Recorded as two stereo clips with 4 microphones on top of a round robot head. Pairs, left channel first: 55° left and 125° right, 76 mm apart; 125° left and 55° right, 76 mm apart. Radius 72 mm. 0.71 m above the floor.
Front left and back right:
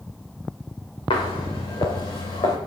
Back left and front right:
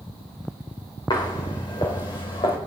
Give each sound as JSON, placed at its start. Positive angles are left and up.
{"t": 1.1, "sound": "footsteps", "azimuth_deg": 85, "distance_m": 5.0}